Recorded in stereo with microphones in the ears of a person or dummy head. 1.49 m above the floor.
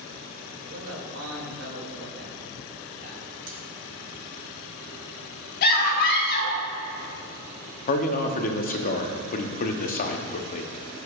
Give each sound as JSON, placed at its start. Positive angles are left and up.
{"t": 0.6, "sound": "a man speaking", "side_deg": -65, "distance_m": 2.0}
{"t": 3.5, "sound": "cutlery clinking", "side_deg": -45, "distance_m": 1.3}
{"t": 5.6, "sound": "a scream", "side_deg": 55, "distance_m": 1.3}
{"t": 7.9, "sound": "a man speaking", "side_deg": 40, "distance_m": 0.8}